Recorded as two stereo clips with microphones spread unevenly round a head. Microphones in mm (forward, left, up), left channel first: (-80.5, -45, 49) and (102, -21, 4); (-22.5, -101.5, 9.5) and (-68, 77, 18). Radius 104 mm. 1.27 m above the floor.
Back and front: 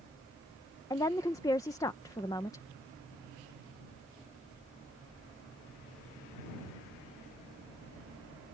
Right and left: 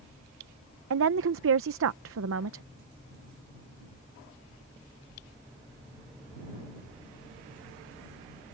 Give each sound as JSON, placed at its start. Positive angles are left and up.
{"t": 0.9, "sound": "a woman speaking", "azimuth_deg": 110}